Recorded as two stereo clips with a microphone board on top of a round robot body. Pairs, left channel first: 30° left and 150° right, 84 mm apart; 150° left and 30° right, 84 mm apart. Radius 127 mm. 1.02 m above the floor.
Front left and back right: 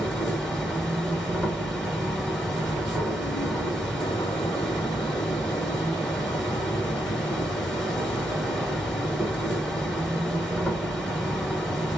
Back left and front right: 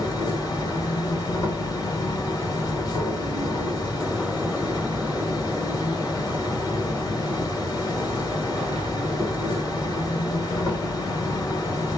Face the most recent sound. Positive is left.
turn(degrees=115)